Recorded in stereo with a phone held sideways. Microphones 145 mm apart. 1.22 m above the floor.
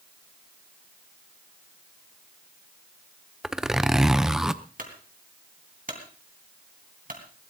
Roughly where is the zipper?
Centre.